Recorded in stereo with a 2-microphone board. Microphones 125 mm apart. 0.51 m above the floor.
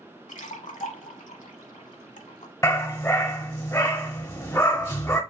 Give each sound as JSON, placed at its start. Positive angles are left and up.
{"t": 0.3, "sound": "a splash", "side_deg": 75, "distance_m": 0.9}
{"t": 2.6, "sound": "a dog barking", "side_deg": 25, "distance_m": 1.1}